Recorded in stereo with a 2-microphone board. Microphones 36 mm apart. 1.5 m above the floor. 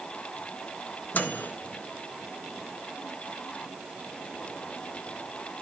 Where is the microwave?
50° left (ahead or behind), 1.5 m.